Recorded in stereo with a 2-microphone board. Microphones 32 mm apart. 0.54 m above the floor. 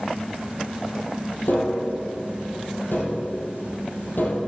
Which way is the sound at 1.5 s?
80° left.